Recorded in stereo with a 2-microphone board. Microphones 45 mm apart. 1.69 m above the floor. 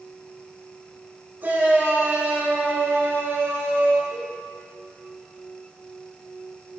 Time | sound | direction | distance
1.4 | a shout | 45° right (ahead or behind) | 4 m
4.1 | a cowbell | 70° right (ahead or behind) | 5 m